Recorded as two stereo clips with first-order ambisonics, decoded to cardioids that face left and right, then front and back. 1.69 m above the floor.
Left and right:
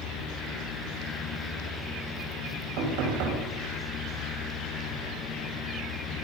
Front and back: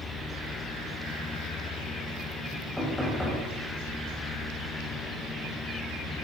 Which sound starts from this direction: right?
Knocking, at 2.8 s.